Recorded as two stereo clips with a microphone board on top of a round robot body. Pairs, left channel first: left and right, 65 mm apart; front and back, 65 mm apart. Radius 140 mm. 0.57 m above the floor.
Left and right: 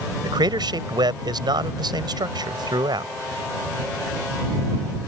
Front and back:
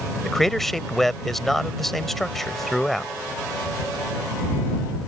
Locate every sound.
0.2 s a man speaking: 85° right